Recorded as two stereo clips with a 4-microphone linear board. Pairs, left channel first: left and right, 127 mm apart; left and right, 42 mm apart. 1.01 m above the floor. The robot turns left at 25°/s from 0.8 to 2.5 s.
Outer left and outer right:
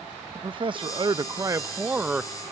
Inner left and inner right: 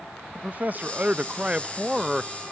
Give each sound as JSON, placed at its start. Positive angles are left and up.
{"t": 0.3, "sound": "a man speaking", "azimuth_deg": -135, "distance_m": 0.5}